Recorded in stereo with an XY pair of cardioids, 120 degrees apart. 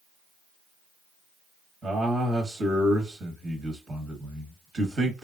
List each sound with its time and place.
1.8 s a man speaking: 40° right, 1.2 m